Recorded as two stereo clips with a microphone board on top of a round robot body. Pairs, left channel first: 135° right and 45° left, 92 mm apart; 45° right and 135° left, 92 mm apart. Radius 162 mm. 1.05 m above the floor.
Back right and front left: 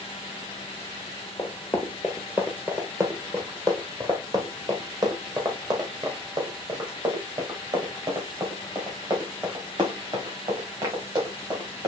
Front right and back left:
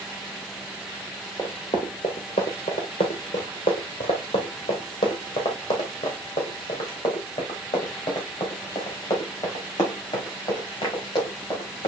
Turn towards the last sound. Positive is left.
turn(degrees=5)